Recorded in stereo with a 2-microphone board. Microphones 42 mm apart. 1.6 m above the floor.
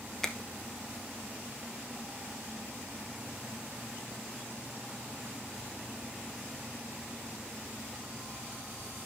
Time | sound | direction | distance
0.2 | a finger snap | 15° left (ahead or behind) | 1.0 m